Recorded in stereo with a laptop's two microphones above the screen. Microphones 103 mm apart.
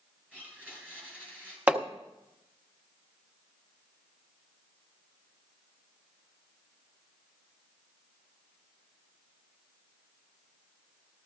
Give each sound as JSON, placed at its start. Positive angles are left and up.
{"t": 0.3, "sound": "a blender", "side_deg": -15, "distance_m": 2.5}
{"t": 1.7, "sound": "hammering", "side_deg": -15, "distance_m": 0.9}